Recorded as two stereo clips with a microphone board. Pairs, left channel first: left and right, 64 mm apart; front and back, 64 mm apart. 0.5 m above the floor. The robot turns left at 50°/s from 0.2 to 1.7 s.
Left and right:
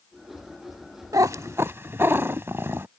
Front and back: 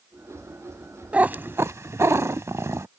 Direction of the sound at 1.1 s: 110° right.